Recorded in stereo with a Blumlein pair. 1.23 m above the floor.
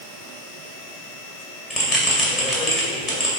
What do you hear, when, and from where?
1.7 s a bell: 20° left, 2 m